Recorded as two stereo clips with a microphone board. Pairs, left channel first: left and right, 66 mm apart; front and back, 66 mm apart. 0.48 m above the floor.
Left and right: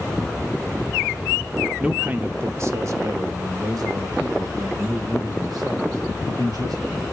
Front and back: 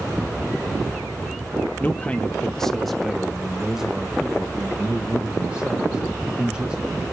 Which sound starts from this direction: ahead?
A man speaking, at 1.8 s.